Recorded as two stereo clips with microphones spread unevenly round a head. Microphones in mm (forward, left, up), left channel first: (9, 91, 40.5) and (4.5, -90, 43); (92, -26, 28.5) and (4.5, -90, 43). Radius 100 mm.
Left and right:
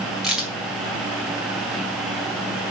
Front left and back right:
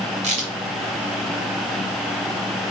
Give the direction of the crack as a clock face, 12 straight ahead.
6 o'clock.